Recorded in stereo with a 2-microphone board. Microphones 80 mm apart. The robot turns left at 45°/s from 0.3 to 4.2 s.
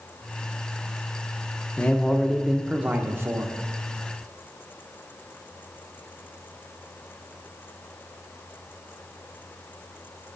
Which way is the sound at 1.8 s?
25° left.